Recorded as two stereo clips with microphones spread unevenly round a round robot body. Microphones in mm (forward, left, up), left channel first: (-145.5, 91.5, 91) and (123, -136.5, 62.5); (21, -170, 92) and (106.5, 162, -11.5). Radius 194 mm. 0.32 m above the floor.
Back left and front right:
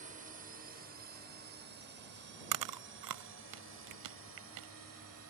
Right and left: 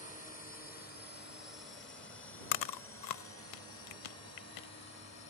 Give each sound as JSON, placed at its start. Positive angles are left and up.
{"t": 0.0, "sound": "a drone", "azimuth_deg": -30}
{"t": 2.5, "sound": "chewing", "azimuth_deg": -75}